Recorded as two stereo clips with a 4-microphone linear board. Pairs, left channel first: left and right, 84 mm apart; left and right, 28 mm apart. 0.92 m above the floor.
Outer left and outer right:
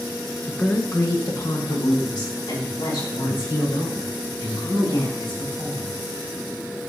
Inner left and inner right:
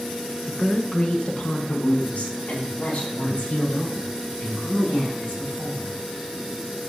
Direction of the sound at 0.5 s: 10° left (ahead or behind).